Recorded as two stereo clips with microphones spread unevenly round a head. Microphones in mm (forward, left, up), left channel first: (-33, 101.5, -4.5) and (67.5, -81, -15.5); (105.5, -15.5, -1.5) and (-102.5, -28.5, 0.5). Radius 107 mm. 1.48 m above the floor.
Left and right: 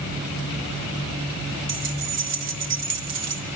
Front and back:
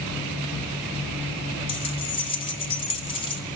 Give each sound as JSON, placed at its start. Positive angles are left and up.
{"t": 1.7, "sound": "keys jangling", "azimuth_deg": -60, "distance_m": 3.0}